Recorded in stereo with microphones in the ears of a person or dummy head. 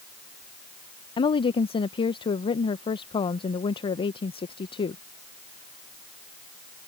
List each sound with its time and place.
1.2 s a woman speaking: 25° left (ahead or behind)